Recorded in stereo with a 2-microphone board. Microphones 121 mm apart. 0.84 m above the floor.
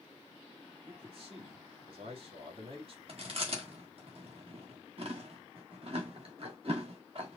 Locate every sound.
0.9 s a man speaking: 50° right (ahead or behind), 1.8 m
3.1 s chewing: 55° right (ahead or behind), 1.4 m